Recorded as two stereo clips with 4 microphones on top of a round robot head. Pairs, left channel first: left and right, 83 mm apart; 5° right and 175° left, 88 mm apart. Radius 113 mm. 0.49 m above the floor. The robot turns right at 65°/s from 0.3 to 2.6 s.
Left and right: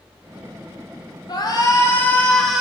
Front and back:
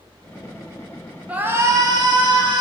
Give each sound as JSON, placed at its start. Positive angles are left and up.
{"t": 1.3, "sound": "a shout", "azimuth_deg": 105, "distance_m": 1.9}